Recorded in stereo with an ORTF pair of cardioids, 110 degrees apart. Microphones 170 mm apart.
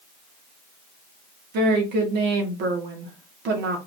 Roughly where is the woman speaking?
Right.